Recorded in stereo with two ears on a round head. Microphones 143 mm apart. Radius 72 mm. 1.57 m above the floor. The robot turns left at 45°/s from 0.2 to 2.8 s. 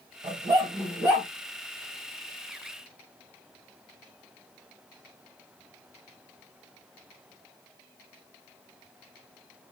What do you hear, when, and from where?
0.2 s a dog barking: 135° right, 1.6 m; by 1.3 s straight behind, 1.6 m